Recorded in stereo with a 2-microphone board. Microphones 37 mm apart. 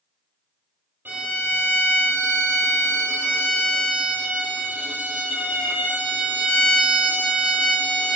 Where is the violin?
65° right (ahead or behind), 2 m.